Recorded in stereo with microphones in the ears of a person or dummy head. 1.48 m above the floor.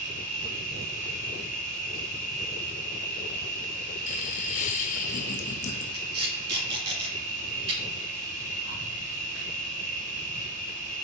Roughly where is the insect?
Right.